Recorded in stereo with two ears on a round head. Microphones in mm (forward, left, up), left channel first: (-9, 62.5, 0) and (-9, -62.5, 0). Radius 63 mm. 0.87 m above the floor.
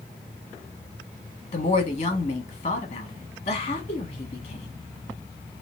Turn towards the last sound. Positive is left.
turn(degrees=45)  # may be behind; listen again after turning